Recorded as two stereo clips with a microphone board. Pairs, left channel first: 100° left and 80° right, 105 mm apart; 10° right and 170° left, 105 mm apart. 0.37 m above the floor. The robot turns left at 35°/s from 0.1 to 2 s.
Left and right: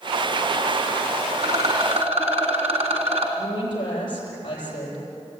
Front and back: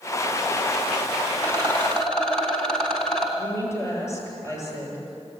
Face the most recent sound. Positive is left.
turn(degrees=55)